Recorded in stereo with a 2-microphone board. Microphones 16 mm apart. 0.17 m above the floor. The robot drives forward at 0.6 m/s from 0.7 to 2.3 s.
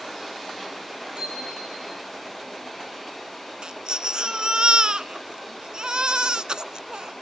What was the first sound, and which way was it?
A bicycle bell, 85° right.